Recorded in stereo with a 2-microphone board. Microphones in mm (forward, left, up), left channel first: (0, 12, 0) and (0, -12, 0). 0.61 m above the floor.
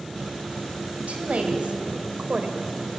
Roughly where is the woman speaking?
Right.